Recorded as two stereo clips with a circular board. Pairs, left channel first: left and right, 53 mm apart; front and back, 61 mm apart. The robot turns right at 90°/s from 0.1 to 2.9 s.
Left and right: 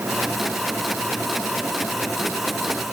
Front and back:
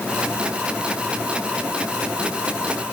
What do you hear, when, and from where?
Only background noise.